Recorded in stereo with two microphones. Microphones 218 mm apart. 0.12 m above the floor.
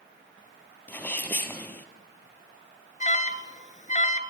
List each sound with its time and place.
0.9 s a sneeze: 10° left (ahead or behind), 3.5 m
3.0 s an alarm: 35° left (ahead or behind), 1.6 m